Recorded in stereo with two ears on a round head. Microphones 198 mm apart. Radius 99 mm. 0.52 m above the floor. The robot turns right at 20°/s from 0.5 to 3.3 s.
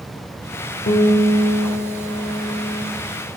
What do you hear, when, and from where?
0.9 s a guitar: 40° left, 1.3 m; by 2.9 s 80° left, 1.3 m